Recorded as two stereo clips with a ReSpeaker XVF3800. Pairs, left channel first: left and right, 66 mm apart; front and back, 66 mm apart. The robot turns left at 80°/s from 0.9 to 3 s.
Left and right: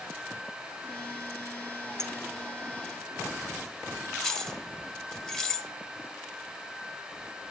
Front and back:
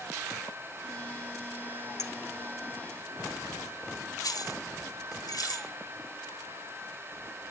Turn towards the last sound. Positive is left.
turn(degrees=15)